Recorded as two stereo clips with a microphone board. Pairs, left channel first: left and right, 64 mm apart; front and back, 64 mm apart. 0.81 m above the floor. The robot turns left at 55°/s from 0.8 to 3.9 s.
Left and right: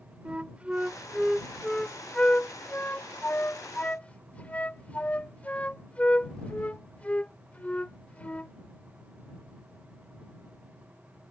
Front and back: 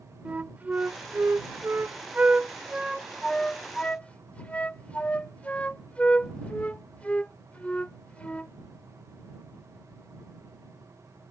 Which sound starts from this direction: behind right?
A flute, at 0.2 s.